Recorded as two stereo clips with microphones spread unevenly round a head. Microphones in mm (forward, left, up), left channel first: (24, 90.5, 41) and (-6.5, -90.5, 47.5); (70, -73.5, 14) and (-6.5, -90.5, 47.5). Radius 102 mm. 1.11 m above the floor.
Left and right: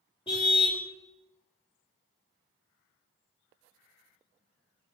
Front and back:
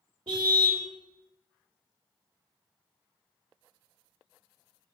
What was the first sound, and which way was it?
A car horn, 145° left.